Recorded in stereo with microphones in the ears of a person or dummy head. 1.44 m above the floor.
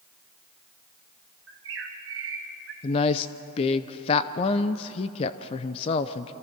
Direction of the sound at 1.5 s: 65° right (ahead or behind).